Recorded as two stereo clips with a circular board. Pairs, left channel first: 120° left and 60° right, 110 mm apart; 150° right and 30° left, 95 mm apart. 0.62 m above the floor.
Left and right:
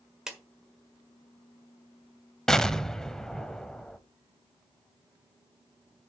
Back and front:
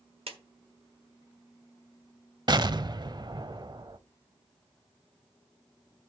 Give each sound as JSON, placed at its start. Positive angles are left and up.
{"t": 0.3, "sound": "a clap", "azimuth_deg": 25, "distance_m": 1.4}
{"t": 2.5, "sound": "an explosion", "azimuth_deg": 35, "distance_m": 0.5}